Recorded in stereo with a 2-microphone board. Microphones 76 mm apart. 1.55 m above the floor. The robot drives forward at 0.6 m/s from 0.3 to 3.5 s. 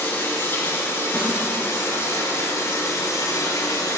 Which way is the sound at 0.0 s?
30° left (ahead or behind).